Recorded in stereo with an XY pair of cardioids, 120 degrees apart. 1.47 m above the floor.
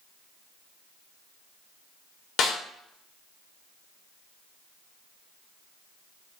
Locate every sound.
2.4 s a snare drum: 65° left, 2.5 m